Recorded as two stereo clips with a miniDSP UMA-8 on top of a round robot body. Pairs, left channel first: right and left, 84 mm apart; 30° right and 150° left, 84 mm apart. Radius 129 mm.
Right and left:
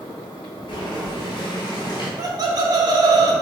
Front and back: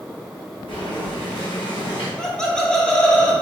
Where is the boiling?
55° right, 0.8 m.